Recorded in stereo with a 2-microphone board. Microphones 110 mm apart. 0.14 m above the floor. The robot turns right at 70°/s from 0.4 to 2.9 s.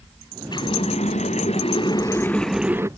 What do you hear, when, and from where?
0.5 s a running tap: 40° left; by 2.9 s 155° right